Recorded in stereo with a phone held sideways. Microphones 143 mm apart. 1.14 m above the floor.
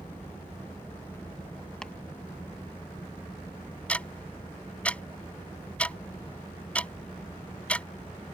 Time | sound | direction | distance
0.0 | a fan | 15° left (ahead or behind) | ?
1.8 | chopping | 5° left (ahead or behind) | ?
3.9 | ticking | 10° left (ahead or behind) | ?